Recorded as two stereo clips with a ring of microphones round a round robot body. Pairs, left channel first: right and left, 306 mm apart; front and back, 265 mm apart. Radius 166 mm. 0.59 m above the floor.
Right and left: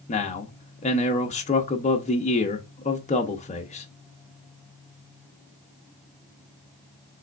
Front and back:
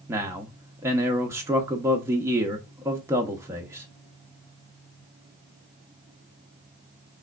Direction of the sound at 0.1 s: 115° right.